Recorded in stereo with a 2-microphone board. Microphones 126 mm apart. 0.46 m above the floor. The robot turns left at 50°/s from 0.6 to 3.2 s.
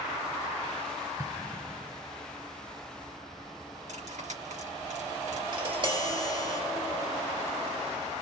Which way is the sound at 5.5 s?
40° right (ahead or behind).